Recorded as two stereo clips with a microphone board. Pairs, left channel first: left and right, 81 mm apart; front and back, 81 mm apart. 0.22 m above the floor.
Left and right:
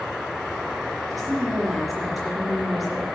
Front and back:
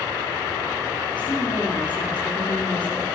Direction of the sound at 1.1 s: Straight ahead.